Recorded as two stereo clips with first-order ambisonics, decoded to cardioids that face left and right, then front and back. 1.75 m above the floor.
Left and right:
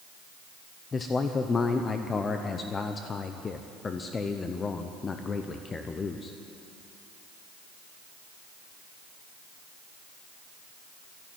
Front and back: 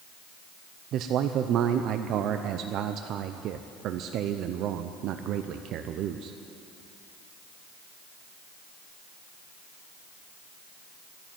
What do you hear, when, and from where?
0.9 s a man speaking: 155° left, 0.5 m